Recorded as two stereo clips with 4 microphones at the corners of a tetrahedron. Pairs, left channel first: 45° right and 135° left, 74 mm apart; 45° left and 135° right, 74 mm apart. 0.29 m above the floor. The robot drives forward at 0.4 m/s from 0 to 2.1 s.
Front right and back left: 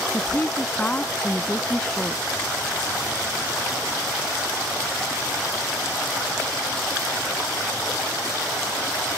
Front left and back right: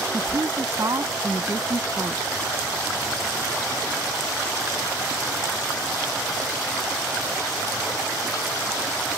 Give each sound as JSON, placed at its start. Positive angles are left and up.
{"t": 0.1, "sound": "a woman speaking", "azimuth_deg": -105}